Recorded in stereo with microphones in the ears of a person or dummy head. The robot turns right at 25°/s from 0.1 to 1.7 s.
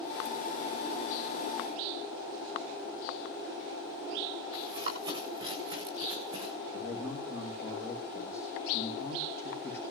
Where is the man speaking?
60° left (ahead or behind), 4.5 m.